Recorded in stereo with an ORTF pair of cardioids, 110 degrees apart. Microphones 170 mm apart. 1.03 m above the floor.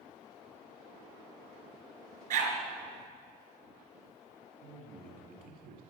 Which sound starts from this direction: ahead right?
A dog barking, at 2.3 s.